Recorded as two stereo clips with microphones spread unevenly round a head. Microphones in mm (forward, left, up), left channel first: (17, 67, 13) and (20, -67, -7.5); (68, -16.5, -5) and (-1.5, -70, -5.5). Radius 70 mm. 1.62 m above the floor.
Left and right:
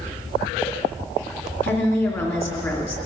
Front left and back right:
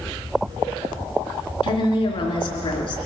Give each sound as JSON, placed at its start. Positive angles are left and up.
{"t": 1.6, "sound": "a woman speaking", "azimuth_deg": 20, "distance_m": 3.0}